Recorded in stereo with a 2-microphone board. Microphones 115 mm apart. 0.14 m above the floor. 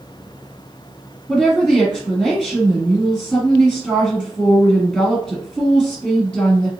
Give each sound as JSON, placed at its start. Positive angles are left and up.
{"t": 1.3, "sound": "a woman speaking", "side_deg": 0, "distance_m": 1.8}